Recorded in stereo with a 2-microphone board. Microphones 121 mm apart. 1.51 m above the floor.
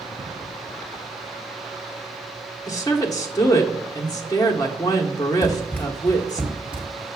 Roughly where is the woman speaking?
Left.